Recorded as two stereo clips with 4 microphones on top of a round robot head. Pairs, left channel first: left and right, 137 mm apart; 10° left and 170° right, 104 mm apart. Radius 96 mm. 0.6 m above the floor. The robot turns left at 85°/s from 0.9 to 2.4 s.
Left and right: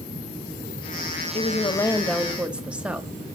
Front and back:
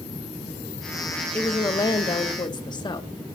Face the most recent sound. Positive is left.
turn(degrees=-10)